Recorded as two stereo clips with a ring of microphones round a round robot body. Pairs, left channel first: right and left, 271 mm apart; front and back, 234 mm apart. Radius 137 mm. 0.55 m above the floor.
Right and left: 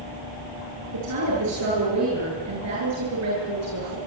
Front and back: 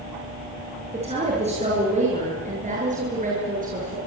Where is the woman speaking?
115° left, 10 m; by 4.0 s 125° left, 9 m.